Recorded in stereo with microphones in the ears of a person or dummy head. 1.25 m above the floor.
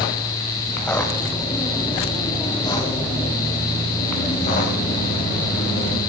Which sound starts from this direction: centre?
Footsteps, at 0.7 s.